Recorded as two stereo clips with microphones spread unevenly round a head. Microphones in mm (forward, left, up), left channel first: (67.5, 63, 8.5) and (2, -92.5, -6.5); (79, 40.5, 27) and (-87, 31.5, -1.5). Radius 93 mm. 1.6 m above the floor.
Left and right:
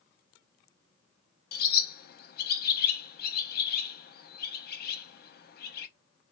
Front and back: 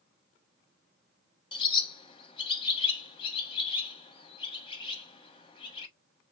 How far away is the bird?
About 0.6 m.